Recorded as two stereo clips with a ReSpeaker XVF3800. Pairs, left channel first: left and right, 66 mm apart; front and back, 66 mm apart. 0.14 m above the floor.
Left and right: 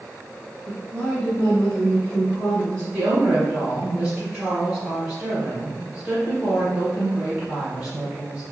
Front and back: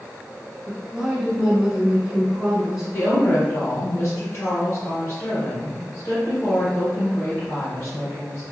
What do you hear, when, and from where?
0.7 s a woman speaking: 120° left, 1.0 m
2.9 s a woman speaking: 25° right, 1.5 m